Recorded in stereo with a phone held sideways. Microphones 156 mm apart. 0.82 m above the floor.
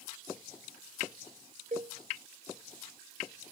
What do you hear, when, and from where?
1.7 s a cowbell: 50° right (ahead or behind), 0.6 m